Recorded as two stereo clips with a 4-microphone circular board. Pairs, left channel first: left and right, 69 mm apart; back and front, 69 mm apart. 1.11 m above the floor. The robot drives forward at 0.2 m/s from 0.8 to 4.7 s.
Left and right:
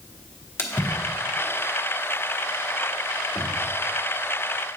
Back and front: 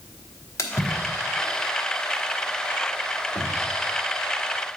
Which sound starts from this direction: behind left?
A splash, at 0.6 s.